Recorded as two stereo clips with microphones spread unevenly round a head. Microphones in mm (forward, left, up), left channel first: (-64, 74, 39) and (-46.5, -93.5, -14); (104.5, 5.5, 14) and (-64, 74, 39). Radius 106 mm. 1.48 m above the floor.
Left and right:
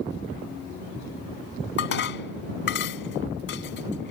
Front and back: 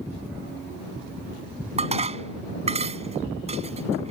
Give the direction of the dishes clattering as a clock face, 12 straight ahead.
9 o'clock.